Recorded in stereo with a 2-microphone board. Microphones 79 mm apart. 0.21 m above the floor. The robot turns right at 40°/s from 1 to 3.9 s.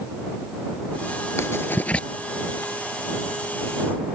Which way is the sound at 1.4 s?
40° left (ahead or behind).